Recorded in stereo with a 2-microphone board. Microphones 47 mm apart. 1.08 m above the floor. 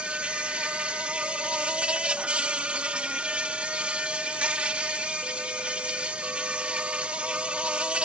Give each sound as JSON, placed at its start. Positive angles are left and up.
{"t": 0.0, "sound": "an insect", "side_deg": -25}